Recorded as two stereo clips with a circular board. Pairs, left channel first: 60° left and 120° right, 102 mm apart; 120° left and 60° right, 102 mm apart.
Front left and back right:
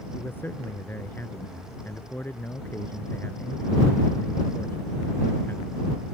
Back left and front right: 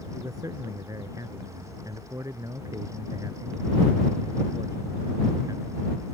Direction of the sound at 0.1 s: 10° right.